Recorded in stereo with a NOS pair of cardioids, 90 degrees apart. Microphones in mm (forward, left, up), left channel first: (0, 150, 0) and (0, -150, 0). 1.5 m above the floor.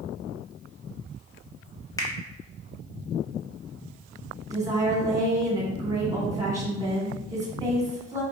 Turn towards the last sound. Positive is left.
turn(degrees=-10)